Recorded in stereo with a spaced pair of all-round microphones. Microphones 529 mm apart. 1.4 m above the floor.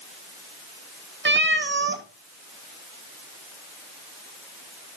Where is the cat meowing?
20° right (ahead or behind), 0.6 m.